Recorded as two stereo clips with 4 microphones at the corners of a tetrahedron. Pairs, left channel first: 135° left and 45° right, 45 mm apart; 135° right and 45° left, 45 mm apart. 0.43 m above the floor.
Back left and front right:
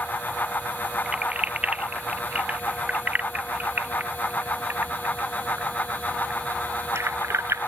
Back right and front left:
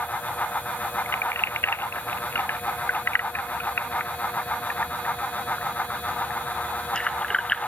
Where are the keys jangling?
110° right; by 7.7 s 60° right.